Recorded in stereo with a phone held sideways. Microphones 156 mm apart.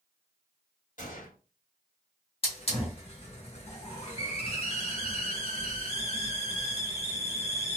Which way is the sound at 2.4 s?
40° left (ahead or behind).